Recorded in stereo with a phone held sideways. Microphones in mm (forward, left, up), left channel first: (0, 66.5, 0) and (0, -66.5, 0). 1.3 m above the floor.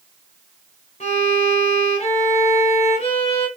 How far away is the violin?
About 3.5 m.